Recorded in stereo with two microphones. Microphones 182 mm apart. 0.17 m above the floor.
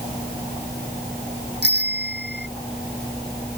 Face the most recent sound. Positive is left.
turn(degrees=-80)